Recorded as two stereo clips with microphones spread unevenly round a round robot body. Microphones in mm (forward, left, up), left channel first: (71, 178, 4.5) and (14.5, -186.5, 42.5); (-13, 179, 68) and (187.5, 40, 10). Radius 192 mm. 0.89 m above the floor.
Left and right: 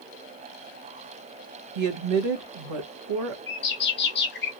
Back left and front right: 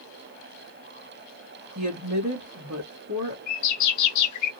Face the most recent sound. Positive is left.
turn(degrees=140)